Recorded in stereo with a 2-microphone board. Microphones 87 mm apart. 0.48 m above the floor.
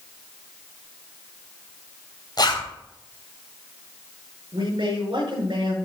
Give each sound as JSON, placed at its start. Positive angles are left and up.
{"t": 2.4, "sound": "a zipper", "side_deg": 55, "distance_m": 3.0}
{"t": 4.5, "sound": "a man speaking", "side_deg": -70, "distance_m": 5.5}